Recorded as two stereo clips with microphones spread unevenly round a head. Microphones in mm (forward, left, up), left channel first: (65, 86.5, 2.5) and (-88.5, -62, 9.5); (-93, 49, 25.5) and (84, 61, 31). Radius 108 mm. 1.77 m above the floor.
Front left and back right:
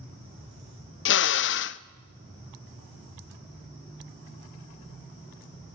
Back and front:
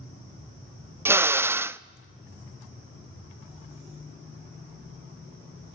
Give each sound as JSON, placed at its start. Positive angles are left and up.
{"t": 1.1, "sound": "a drill", "azimuth_deg": 80, "distance_m": 0.6}